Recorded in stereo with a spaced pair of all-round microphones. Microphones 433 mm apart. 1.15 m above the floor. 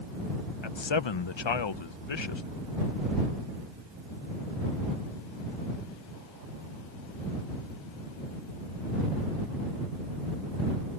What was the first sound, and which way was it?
A man speaking, 85° left.